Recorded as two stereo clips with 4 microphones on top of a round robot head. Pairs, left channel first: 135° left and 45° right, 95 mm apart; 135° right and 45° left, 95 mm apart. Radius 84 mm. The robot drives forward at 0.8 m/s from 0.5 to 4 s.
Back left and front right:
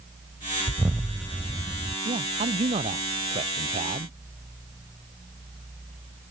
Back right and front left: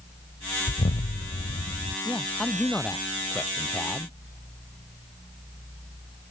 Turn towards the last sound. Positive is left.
turn(degrees=-60)